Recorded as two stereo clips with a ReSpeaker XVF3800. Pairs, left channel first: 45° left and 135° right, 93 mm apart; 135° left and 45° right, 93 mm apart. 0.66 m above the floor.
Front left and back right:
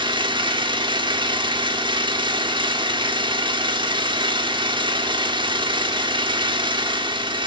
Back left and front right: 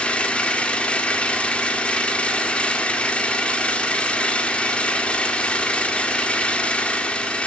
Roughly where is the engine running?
Behind right.